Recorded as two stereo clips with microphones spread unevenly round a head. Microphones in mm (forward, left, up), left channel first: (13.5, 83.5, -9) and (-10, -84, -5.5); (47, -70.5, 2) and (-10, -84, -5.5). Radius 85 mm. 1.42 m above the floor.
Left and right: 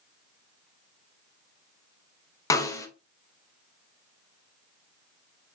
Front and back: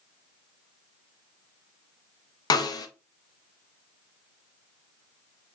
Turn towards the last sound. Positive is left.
turn(degrees=10)